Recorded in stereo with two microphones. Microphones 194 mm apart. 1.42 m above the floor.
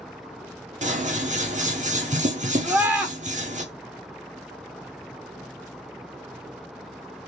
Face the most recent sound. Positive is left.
turn(degrees=-10)  # may be behind; listen again after turning